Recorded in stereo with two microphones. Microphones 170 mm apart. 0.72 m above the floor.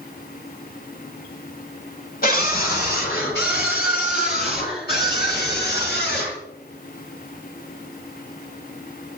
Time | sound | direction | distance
2.2 | a scream | 60° left (ahead or behind) | 2.5 m